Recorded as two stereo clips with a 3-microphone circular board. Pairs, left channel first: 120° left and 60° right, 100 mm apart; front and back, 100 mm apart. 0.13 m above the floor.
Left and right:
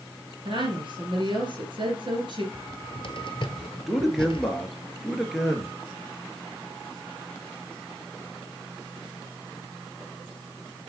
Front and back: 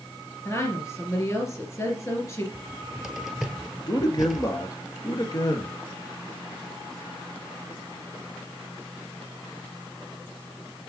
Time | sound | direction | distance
0.5 | a woman speaking | 55° right | 3 m
2.5 | a cupboard door | 95° left | 1.0 m
3.9 | a man speaking | 25° left | 1.8 m